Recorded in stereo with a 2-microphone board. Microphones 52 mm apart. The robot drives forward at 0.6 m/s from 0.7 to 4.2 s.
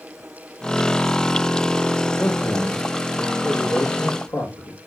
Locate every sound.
2.2 s a man speaking: 65° left (ahead or behind), 5.5 m; by 4.8 s 75° left (ahead or behind), 5 m